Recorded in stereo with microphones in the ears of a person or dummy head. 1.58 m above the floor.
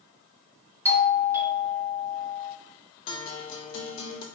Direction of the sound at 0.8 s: 15° right (ahead or behind).